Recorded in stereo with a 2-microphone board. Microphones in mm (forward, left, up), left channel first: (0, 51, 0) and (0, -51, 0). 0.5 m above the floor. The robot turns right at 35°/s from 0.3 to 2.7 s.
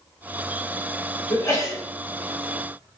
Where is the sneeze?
35° left (ahead or behind), 1.6 m; by 1.8 s 25° left (ahead or behind), 1.6 m.